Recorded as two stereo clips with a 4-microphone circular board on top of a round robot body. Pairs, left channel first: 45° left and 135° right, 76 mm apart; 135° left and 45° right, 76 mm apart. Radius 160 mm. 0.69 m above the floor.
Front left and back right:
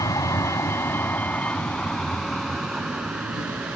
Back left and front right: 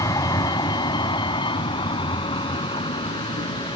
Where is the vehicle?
90° left; by 3.8 s 150° left.